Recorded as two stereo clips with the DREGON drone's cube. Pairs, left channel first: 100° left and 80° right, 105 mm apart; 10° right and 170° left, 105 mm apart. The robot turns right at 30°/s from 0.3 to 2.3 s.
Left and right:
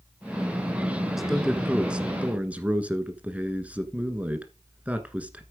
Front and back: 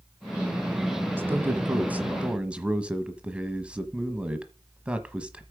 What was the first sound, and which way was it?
A man speaking, 165° right.